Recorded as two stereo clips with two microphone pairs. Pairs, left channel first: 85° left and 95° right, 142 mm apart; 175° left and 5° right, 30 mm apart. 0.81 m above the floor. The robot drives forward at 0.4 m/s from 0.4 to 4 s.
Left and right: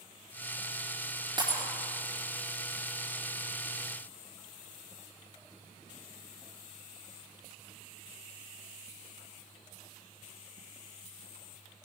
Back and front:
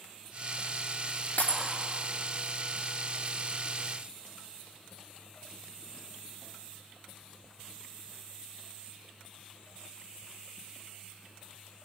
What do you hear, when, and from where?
1.4 s breaking glass: 155° right, 5 m